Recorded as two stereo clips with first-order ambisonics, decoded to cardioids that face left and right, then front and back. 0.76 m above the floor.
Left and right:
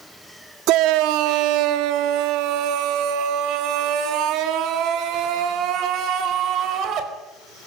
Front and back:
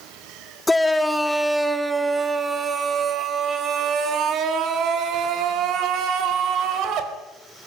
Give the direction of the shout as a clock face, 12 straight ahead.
3 o'clock.